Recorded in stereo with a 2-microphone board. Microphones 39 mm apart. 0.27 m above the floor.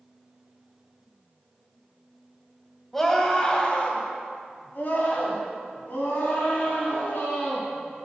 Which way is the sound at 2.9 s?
10° left (ahead or behind).